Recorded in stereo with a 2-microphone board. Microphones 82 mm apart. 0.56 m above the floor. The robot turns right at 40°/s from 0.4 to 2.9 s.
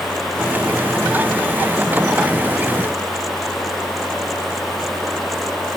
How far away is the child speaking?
I don't hear a child speaking.